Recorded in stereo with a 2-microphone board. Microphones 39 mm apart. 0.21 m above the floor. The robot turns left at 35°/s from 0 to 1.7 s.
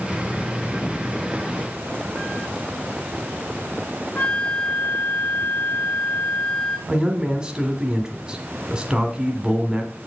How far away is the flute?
About 1.4 m.